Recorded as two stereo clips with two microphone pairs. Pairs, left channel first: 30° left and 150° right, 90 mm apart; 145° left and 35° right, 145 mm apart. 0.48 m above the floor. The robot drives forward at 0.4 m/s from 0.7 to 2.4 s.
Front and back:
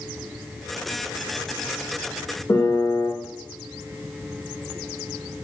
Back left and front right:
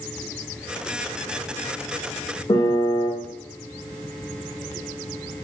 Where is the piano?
85° left, 0.9 m.